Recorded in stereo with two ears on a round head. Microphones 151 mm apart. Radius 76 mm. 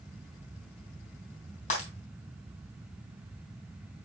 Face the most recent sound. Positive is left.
turn(degrees=45)  # may be behind; listen again after turning